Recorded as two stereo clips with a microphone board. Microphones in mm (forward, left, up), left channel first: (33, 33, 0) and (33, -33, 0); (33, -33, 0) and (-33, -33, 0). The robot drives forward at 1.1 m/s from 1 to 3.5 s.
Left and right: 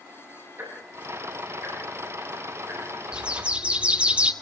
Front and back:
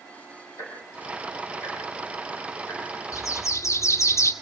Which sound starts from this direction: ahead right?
Ticking, at 0.6 s.